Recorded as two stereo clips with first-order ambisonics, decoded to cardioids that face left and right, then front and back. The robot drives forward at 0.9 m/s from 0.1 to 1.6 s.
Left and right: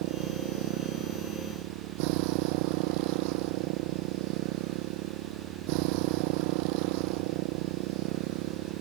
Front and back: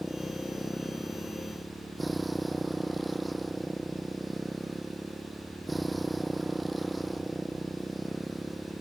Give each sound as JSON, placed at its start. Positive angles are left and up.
{"t": 0.0, "sound": "a motorcycle", "azimuth_deg": -90}